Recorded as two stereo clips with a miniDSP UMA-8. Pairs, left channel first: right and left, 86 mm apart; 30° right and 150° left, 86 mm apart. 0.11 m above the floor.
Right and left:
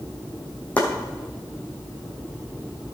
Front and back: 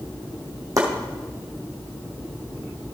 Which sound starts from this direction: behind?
Chopping, at 0.8 s.